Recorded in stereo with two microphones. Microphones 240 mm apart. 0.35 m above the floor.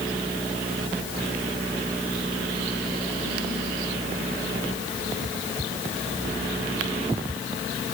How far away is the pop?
No pop in this recording.